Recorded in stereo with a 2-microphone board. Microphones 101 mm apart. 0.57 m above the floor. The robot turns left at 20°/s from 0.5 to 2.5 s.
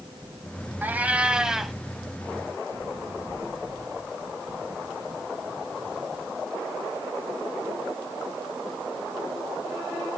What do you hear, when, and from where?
0.8 s a cat meowing: 20° right (ahead or behind), 0.7 m; by 1.8 s centre (ahead or behind), 0.7 m